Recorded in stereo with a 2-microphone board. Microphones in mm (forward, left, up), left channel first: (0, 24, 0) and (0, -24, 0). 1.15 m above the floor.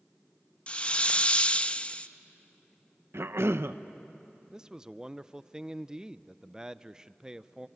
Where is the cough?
70° right (ahead or behind), 0.9 m.